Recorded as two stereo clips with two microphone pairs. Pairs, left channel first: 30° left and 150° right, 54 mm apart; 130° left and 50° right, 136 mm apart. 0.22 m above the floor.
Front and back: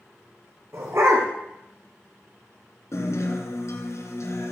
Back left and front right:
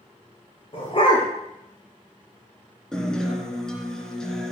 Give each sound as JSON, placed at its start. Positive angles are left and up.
{"t": 0.7, "sound": "a dog barking", "azimuth_deg": 180, "distance_m": 5.0}
{"t": 2.9, "sound": "a guitar", "azimuth_deg": 45, "distance_m": 3.0}